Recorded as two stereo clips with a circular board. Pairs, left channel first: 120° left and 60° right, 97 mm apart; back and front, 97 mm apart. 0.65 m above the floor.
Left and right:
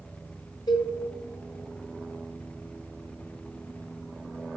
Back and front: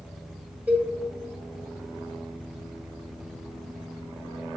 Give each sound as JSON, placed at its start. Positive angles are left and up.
{"t": 0.7, "sound": "a cowbell", "azimuth_deg": 75, "distance_m": 1.4}